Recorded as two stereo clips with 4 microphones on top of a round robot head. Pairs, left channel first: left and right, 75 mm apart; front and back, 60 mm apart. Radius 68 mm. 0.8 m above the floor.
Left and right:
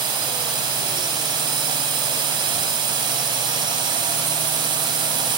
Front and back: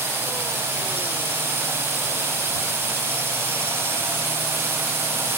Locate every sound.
0.0 s a drone: 120° right